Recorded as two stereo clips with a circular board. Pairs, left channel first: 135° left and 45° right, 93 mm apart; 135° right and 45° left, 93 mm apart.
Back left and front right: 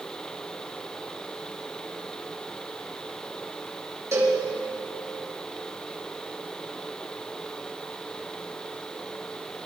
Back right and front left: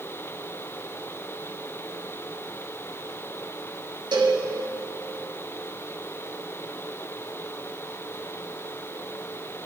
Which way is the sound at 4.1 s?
10° left.